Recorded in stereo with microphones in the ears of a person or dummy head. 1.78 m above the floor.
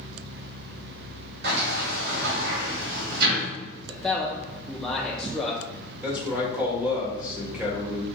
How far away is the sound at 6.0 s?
About 1.6 m.